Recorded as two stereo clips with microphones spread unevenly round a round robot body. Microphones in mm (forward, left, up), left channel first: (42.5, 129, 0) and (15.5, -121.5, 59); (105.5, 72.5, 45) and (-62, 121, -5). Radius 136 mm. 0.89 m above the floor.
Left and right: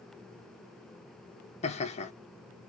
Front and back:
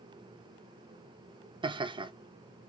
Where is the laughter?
125° left, 0.8 m.